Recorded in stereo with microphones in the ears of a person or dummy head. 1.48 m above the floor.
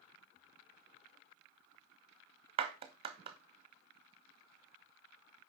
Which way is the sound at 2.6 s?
30° right (ahead or behind).